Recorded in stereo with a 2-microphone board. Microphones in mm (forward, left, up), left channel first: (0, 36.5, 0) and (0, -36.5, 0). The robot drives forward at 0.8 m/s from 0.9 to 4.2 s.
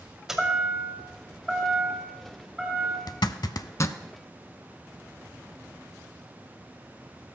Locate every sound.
0.3 s a chime: 5° right (ahead or behind), 1.6 m
3.1 s a zipper: 65° left (ahead or behind), 0.5 m; by 4.0 s 40° left (ahead or behind), 0.7 m